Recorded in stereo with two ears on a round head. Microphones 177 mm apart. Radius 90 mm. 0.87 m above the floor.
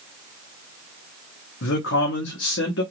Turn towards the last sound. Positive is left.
turn(degrees=70)  # may be behind; listen again after turning